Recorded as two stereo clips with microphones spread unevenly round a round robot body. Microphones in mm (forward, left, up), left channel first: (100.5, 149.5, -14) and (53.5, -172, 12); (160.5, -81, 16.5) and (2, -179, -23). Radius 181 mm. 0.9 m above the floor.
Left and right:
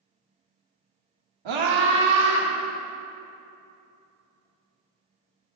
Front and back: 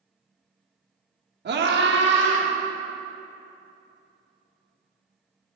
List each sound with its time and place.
1.4 s a scream: 130° right, 1.7 m; by 2.5 s 145° right, 3 m